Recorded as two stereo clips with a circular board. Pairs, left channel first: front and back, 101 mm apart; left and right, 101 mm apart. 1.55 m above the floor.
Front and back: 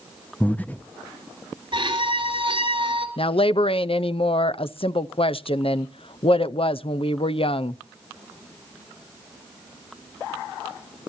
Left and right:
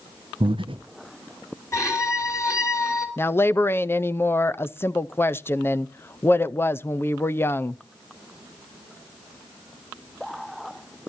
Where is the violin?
150° left, 3.5 m.